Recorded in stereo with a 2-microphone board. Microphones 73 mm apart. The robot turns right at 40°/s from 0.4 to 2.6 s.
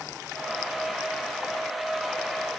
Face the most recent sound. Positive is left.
No sound to turn to.